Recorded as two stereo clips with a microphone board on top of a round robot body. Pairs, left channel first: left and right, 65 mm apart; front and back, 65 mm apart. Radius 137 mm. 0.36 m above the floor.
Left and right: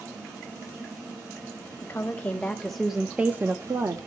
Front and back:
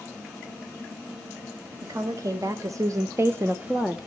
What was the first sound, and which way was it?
A woman speaking, 150° left.